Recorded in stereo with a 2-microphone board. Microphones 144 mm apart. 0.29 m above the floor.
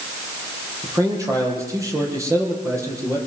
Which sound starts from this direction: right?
A man speaking, at 0.8 s.